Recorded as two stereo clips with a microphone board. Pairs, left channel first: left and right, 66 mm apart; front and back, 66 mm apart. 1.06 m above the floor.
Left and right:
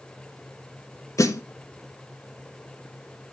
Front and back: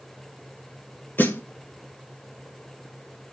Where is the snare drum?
55° left, 1.4 m.